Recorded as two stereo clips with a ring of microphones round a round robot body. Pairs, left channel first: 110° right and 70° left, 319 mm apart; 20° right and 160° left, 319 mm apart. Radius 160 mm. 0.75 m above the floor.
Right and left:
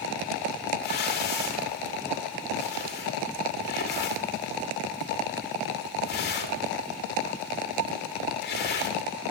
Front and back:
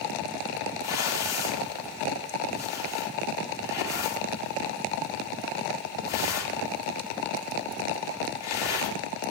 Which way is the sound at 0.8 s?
55° right.